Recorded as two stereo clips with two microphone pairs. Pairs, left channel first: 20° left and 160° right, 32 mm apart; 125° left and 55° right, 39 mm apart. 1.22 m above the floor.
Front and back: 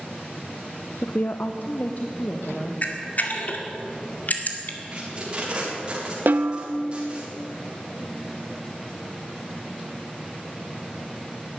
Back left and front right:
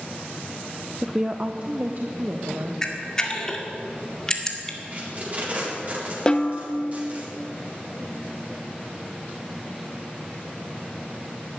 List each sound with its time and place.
1.0 s a woman speaking: 25° left, 0.6 m; by 2.7 s 20° right, 1.7 m
2.8 s a camera shutter: 55° left, 1.9 m
4.9 s tape being pulled: 105° right, 4 m
6.3 s a snare drum: 170° right, 1.0 m